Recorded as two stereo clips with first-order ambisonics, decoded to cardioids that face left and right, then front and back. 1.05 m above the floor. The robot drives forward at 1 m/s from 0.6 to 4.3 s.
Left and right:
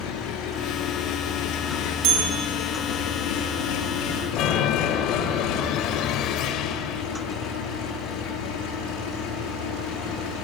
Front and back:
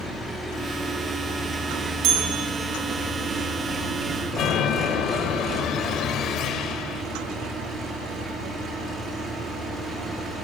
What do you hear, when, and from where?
0.0 s an engine running: 85° left, 7.5 m; by 10.4 s 110° left, 8.5 m
2.0 s a bell: 135° right, 5 m; by 2.5 s 140° right, 5.5 m
4.3 s a chime: 50° left, 1.9 m